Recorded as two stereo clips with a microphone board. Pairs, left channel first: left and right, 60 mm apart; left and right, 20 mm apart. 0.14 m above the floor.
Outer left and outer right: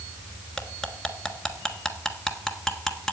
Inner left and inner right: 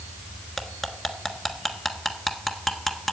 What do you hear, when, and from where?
0.6 s cutlery clinking: 5° left (ahead or behind), 1.3 m